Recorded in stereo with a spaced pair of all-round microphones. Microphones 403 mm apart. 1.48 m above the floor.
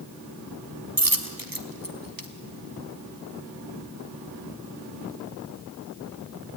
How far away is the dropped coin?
About 2.0 m.